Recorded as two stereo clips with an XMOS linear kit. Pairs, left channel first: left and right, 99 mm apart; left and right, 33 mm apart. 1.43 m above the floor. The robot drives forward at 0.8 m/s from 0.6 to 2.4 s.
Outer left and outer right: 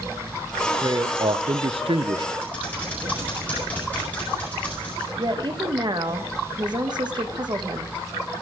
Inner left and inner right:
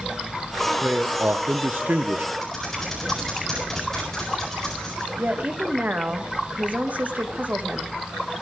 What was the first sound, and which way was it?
A man speaking, 35° right (ahead or behind).